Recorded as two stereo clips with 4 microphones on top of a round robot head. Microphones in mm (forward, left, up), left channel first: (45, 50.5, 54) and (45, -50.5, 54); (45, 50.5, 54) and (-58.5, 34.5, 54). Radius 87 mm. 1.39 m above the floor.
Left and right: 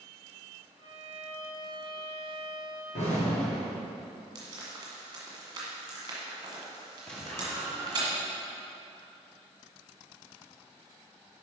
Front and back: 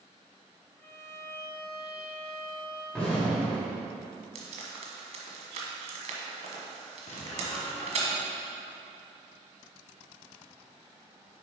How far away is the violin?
About 1.4 m.